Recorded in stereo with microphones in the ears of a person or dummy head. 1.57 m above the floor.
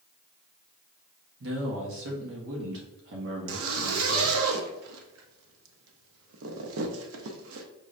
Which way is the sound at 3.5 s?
80° right.